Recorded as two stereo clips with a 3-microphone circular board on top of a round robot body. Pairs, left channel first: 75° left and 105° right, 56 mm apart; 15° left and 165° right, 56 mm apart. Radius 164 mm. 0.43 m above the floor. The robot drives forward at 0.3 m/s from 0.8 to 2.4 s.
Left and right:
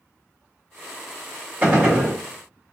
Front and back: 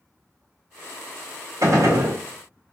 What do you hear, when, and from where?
1.6 s a gunshot: 170° right, 1.6 m